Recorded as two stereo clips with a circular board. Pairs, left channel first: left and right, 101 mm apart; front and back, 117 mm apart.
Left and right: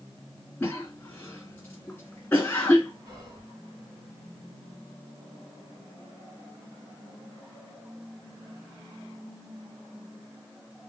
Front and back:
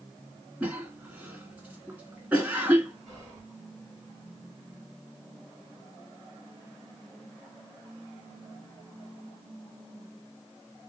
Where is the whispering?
105° right, 1.7 m.